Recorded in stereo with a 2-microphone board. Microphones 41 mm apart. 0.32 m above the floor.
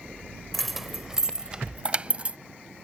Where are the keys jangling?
5° left (ahead or behind); by 2.4 s 35° right (ahead or behind).